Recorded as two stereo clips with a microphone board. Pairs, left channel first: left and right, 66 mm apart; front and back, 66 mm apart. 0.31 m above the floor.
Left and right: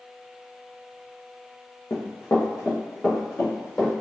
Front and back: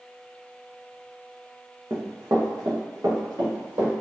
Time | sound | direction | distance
1.9 | running footsteps | 135° left | 0.8 m